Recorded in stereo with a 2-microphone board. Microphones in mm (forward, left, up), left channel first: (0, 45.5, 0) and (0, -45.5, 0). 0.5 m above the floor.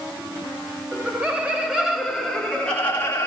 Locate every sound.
0.9 s laughter: 20° right (ahead or behind), 1.2 m; by 3.3 s 25° left (ahead or behind), 1.1 m